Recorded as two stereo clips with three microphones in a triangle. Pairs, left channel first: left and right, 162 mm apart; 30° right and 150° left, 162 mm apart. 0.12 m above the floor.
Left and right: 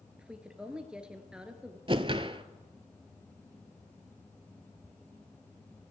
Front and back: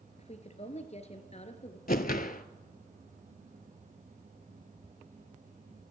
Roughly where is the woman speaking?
Ahead.